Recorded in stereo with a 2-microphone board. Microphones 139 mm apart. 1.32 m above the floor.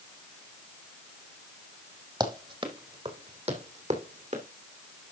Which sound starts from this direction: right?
Running footsteps, at 2.2 s.